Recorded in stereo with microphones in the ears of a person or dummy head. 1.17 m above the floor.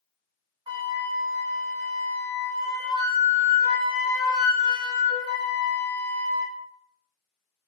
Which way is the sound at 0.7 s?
20° right (ahead or behind).